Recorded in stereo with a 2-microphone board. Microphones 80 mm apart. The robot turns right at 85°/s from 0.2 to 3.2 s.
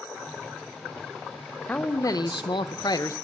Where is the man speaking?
20° left, 0.6 m; by 3.1 s 140° left, 0.6 m.